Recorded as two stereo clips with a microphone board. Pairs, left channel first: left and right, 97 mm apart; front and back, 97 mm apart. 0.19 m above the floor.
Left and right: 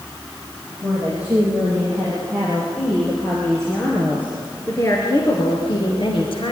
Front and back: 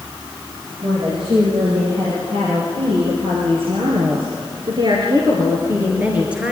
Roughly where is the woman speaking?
Behind.